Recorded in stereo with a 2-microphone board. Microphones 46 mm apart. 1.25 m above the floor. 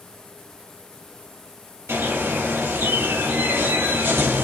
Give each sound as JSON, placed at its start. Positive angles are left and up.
{"t": 1.9, "sound": "a bird", "side_deg": -80, "distance_m": 2.5}